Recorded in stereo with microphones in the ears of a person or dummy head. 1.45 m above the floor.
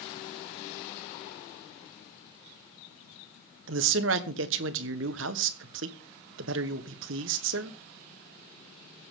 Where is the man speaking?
70° right (ahead or behind), 1.1 m.